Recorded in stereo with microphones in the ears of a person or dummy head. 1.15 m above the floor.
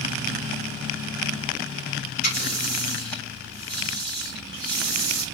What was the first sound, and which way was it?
A running tap, 50° left (ahead or behind).